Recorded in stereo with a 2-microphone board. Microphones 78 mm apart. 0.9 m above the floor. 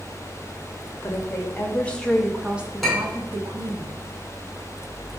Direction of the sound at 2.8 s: Centre (ahead or behind).